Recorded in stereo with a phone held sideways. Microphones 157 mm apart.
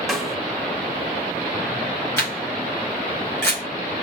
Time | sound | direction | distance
0.1 | a snare drum | centre (ahead or behind) | 0.9 m
2.2 | a camera shutter | 15° left (ahead or behind) | 3.5 m